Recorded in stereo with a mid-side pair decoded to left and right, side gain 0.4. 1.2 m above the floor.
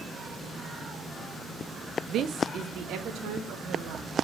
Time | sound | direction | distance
2.1 | a woman speaking | 65° right | 0.6 m